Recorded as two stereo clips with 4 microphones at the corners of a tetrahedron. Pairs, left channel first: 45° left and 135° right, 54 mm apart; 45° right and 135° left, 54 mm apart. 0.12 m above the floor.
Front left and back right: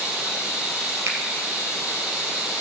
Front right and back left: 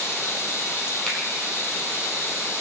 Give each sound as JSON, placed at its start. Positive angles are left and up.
{"t": 0.0, "sound": "running water", "azimuth_deg": -75, "distance_m": 4.0}
{"t": 1.1, "sound": "a finger snap", "azimuth_deg": -125, "distance_m": 3.0}